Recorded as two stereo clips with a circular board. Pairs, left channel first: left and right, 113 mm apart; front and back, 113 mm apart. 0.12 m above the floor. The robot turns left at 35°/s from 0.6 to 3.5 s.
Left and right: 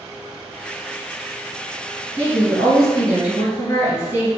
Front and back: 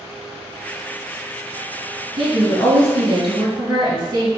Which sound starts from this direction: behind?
A woman speaking, at 2.2 s.